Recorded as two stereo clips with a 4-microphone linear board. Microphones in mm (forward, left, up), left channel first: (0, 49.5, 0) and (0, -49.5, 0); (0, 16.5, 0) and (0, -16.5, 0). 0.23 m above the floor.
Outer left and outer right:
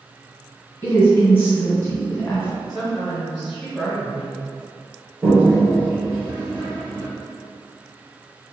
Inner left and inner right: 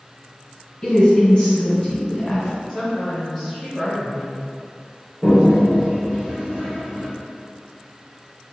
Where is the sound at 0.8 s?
25° left (ahead or behind), 1.8 m.